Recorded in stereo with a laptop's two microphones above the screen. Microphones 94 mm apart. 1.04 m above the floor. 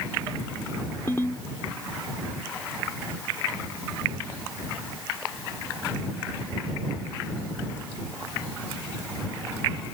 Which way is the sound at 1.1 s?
25° left (ahead or behind).